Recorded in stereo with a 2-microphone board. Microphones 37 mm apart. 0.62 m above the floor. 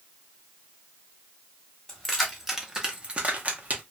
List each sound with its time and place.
1.9 s keys jangling: 5° left (ahead or behind), 1.0 m; by 3.8 s 45° right (ahead or behind), 0.8 m